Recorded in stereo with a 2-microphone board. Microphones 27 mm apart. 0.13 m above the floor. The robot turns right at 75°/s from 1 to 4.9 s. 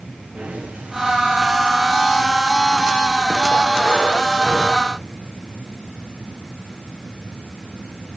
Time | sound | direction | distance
0.3 | breathing | 55° right (ahead or behind) | 6 m